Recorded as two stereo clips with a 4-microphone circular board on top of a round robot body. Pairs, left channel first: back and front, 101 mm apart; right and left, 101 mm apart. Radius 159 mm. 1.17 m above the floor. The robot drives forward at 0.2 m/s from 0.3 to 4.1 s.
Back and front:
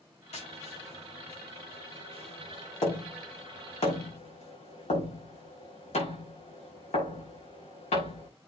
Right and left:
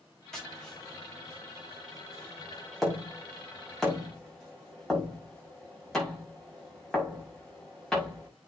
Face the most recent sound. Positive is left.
turn(degrees=-175)